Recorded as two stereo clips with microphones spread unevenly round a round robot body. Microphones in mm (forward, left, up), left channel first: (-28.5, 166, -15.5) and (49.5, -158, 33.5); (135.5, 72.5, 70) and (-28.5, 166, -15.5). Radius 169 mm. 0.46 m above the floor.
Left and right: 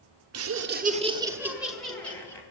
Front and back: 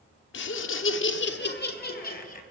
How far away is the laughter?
About 1.1 m.